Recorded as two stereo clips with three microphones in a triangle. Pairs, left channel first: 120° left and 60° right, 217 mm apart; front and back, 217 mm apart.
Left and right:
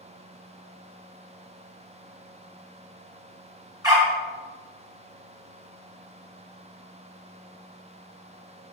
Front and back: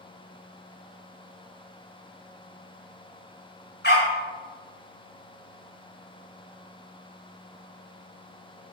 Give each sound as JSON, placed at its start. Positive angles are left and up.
{"t": 3.8, "sound": "a dog barking", "azimuth_deg": 10, "distance_m": 1.1}